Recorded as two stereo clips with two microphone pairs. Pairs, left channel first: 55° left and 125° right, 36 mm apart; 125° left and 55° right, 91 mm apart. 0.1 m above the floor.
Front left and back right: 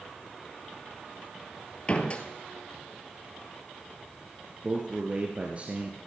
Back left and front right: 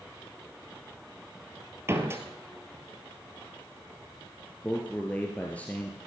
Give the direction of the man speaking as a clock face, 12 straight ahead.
5 o'clock.